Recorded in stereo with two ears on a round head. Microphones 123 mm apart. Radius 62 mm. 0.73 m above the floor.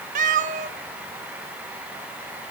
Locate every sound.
0.1 s a cat meowing: 65° right (ahead or behind), 0.6 m; by 2.5 s 55° right (ahead or behind), 2 m